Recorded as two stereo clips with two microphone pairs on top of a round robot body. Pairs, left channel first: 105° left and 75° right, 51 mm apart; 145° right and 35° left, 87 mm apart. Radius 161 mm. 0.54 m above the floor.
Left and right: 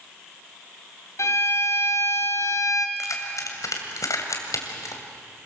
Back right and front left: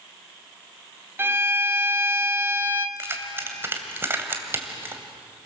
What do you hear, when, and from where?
1.2 s a violin: 95° left, 2.0 m
3.0 s keys jangling: 100° left, 2 m